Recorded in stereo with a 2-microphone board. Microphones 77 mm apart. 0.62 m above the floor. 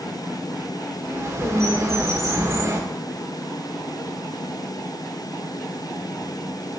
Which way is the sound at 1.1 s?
40° right (ahead or behind).